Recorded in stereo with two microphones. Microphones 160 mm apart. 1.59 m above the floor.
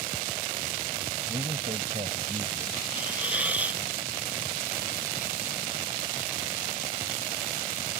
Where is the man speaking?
45° right (ahead or behind).